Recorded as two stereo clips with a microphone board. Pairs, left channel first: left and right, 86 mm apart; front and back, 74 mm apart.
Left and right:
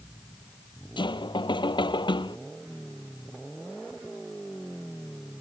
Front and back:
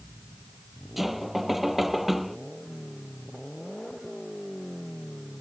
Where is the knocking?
90° left.